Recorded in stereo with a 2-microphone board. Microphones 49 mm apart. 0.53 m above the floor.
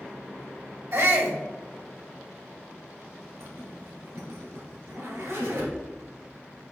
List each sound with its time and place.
0.9 s a shout: 60° right (ahead or behind), 3 m
3.4 s a zipper: 65° right (ahead or behind), 2.5 m